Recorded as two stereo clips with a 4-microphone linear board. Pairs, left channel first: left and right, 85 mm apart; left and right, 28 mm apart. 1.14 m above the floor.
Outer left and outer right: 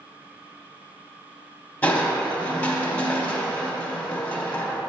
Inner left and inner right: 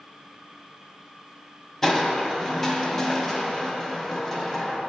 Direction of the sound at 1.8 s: 20° left (ahead or behind).